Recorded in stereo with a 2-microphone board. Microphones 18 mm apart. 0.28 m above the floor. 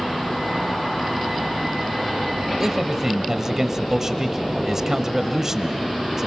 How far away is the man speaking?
About 1.0 m.